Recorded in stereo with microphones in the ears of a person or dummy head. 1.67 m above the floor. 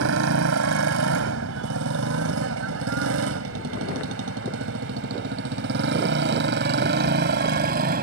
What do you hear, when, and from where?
0.0 s a motorcycle: 70° right (ahead or behind); by 8.0 s 50° right (ahead or behind)